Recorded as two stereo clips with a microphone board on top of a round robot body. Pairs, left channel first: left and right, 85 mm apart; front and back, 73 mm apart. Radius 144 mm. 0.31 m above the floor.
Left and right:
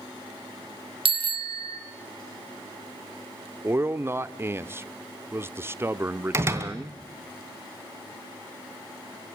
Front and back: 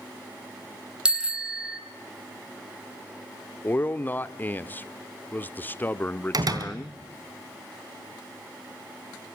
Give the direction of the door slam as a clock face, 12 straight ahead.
5 o'clock.